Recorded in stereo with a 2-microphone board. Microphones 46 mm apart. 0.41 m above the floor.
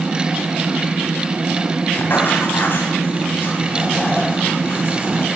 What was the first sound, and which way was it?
Writing, 50° left (ahead or behind).